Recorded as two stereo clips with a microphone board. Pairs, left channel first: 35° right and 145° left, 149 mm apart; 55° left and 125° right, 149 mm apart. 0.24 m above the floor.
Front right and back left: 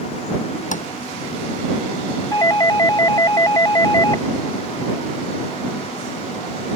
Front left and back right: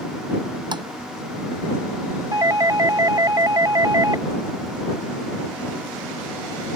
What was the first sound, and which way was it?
Tapping, 65° right.